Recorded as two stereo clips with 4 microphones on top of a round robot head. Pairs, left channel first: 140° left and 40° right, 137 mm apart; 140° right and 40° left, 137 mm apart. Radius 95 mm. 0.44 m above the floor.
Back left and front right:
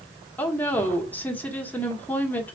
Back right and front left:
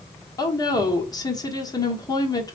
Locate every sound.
0.4 s a woman speaking: 155° right, 1.2 m